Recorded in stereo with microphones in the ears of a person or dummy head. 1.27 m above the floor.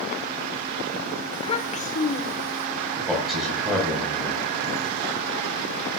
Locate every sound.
1.3 s a child speaking: 20° left (ahead or behind), 1.2 m; by 2.7 s 50° left (ahead or behind), 2.5 m
3.0 s a man speaking: 5° right (ahead or behind), 7 m